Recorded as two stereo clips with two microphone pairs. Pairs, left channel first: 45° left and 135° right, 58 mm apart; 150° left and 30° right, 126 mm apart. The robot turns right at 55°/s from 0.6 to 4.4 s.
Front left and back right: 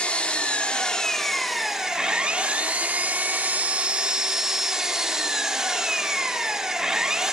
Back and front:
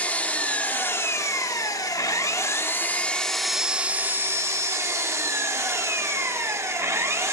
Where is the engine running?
85° left, 0.9 m; by 7.3 s 65° right, 0.9 m.